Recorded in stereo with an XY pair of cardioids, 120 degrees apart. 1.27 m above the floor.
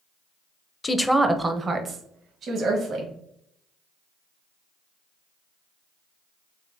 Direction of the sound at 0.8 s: 25° left.